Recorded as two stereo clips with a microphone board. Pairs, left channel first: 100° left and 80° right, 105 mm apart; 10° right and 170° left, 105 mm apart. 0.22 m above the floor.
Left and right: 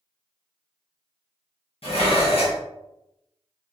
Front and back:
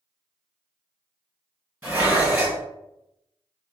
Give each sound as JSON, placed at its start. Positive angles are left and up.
{"t": 1.8, "sound": "dishes clattering", "azimuth_deg": 100, "distance_m": 1.8}